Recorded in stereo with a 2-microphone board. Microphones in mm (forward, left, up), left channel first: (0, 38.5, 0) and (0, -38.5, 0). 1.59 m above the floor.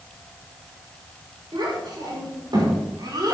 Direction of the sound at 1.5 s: 65° right (ahead or behind).